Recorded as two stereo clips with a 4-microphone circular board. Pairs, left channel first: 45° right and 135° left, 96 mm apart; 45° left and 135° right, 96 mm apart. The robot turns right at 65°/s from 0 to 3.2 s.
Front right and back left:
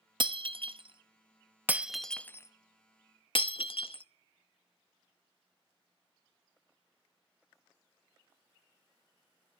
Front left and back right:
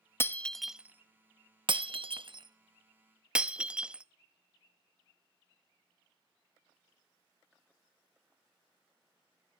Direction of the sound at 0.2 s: 110° left.